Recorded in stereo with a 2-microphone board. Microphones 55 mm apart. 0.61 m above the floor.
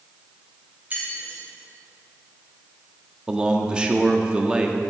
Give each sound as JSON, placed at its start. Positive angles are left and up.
{"t": 0.9, "sound": "keys jangling", "side_deg": -35, "distance_m": 2.5}
{"t": 3.3, "sound": "a man speaking", "side_deg": -15, "distance_m": 0.9}